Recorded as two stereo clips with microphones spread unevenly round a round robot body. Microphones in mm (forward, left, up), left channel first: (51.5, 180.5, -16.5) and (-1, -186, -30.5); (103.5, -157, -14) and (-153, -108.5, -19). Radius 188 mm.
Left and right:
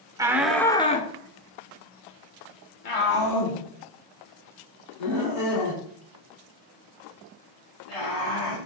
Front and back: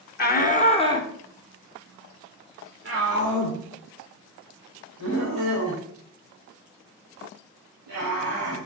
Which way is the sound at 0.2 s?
25° right.